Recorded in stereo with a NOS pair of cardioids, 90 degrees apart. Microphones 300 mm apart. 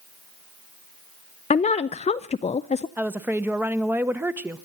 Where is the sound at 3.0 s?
5° right, 1.3 m.